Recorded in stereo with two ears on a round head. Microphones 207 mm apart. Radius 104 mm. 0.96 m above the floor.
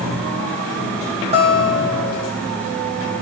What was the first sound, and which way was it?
A guitar, 25° right (ahead or behind).